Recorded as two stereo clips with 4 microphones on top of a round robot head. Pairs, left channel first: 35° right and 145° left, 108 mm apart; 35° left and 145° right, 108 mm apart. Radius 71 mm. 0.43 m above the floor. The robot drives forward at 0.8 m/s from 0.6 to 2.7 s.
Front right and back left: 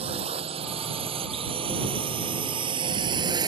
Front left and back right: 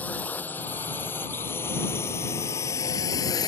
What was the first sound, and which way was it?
A drone, 110° left.